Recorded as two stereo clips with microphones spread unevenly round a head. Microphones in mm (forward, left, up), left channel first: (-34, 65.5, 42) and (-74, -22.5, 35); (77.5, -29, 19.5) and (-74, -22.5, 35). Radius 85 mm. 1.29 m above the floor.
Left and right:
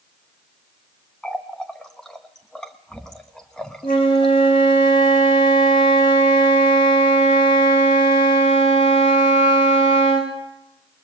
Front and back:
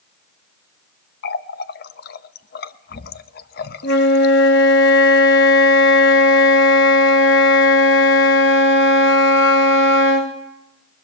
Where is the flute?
10° left, 2.5 m.